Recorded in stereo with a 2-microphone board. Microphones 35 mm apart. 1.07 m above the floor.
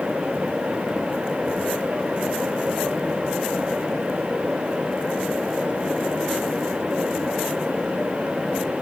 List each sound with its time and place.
Only background noise.